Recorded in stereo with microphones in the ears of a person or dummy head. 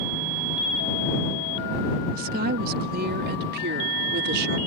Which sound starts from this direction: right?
A woman speaking, at 2.1 s.